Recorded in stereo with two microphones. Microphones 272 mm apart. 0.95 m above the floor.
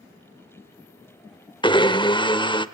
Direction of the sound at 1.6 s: 20° left (ahead or behind).